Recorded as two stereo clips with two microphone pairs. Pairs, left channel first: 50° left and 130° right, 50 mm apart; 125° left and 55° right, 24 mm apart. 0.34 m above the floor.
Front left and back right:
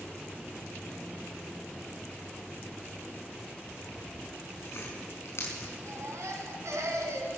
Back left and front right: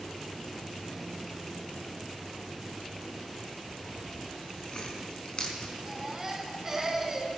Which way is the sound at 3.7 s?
75° left.